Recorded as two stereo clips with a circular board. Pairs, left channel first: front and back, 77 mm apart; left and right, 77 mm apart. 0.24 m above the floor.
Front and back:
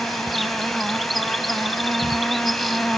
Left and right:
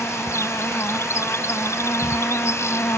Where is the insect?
90° left.